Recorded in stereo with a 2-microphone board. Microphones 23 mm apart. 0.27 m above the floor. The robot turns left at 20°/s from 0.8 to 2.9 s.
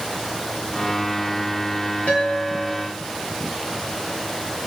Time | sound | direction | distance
2.1 | a guitar | 75° left (ahead or behind) | 5.5 m